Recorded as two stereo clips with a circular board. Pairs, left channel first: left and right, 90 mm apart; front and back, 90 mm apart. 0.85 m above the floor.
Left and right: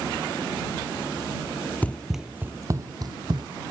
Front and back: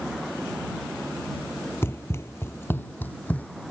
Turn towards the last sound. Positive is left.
turn(degrees=-70)